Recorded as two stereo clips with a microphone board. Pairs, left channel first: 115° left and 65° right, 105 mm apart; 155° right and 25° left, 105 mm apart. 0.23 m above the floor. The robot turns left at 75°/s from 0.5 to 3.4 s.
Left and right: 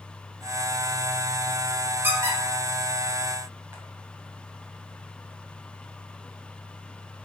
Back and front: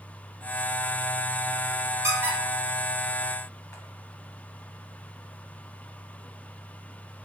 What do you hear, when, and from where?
2.0 s a squeak: 10° right, 0.6 m; by 3.8 s 115° right, 0.6 m